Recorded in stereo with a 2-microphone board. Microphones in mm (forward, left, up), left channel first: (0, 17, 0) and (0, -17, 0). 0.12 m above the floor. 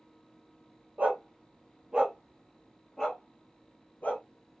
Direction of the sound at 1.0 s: 45° right (ahead or behind).